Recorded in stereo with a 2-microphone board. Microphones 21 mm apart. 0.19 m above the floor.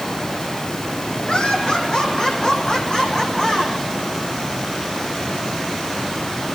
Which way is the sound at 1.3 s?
50° left (ahead or behind).